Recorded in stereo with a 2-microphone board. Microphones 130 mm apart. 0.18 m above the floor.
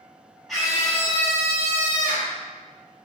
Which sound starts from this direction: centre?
A scream, at 0.5 s.